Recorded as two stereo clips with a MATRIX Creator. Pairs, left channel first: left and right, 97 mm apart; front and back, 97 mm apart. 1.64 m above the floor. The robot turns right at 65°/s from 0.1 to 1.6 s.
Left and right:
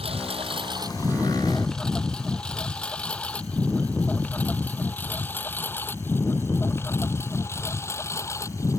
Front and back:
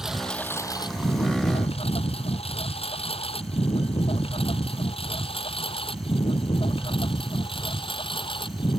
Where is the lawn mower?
95° right; by 8.8 s 30° left.